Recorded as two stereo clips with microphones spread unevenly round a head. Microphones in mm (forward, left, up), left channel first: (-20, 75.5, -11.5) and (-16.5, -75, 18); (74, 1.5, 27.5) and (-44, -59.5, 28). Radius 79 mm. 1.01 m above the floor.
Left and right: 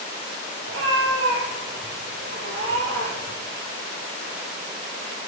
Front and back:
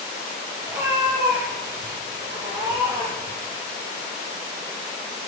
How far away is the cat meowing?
About 6 m.